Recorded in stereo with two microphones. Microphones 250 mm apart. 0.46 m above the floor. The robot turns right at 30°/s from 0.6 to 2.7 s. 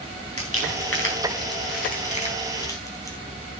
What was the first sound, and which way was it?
Crumpling, 70° left (ahead or behind).